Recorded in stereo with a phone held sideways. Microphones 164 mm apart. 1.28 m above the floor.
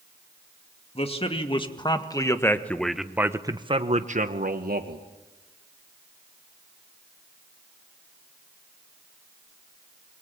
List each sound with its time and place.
0.9 s a man speaking: 35° left (ahead or behind), 2.5 m; by 5.0 s 70° right (ahead or behind), 1.7 m